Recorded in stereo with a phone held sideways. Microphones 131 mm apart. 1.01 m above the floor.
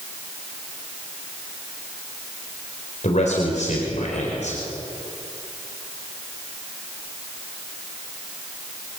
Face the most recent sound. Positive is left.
turn(degrees=65)  # may be behind; listen again after turning